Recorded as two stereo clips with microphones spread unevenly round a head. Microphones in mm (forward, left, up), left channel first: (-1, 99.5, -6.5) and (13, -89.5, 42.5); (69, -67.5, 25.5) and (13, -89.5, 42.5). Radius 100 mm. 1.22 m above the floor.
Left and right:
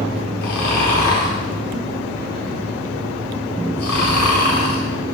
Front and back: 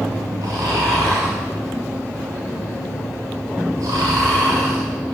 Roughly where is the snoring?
Behind left.